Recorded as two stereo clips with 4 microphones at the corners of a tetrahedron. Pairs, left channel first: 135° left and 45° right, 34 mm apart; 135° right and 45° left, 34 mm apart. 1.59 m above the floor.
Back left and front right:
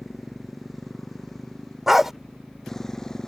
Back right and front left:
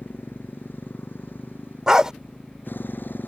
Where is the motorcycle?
135° right; by 3.3 s 150° right.